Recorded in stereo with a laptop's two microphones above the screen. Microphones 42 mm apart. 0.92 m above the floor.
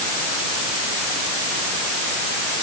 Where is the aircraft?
No aircraft in this recording.